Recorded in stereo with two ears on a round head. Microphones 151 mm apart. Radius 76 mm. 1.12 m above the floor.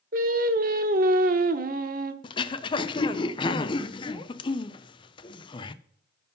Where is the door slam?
I don't hear a door slam.